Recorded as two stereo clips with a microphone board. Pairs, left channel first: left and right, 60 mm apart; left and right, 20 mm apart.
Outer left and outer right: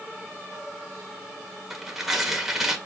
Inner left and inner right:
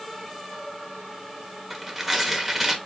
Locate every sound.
1.7 s tearing paper: 5° right (ahead or behind), 1.3 m